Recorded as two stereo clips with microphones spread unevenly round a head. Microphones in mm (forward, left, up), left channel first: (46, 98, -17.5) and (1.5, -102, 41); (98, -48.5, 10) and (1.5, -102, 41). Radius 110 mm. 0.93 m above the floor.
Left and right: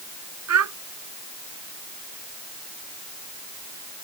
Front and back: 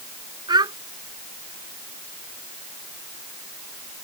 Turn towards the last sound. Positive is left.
turn(degrees=-100)